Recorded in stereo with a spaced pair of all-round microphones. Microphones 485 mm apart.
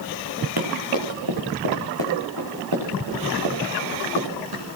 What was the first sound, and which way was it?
Running footsteps, 50° right (ahead or behind).